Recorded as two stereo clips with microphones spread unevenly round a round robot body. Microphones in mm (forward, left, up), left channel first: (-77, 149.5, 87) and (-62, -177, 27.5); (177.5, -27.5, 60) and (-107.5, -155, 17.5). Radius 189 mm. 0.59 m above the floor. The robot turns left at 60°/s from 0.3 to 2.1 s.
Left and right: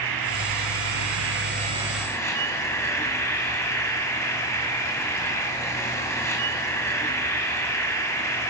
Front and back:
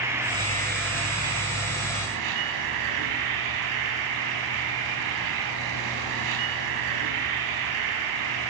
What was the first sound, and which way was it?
An insect, 75° right.